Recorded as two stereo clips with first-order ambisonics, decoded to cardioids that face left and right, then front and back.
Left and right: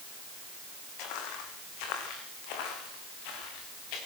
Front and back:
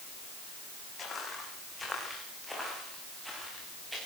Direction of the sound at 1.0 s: 70° left.